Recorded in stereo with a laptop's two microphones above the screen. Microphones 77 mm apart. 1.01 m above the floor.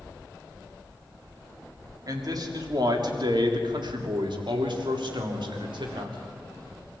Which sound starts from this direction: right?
A man speaking, at 2.1 s.